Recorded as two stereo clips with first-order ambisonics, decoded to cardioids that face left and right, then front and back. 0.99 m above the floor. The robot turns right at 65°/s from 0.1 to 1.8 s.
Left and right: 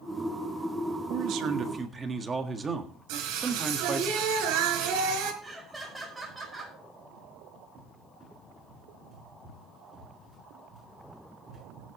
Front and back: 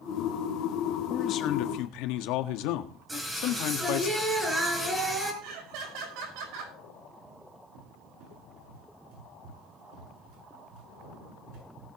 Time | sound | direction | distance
1.1 | a man speaking | 65° right | 1.5 m
3.1 | singing | 100° right | 4 m
5.4 | laughter | 175° right | 5.5 m
7.8 | a cupboard door | 165° right | 8 m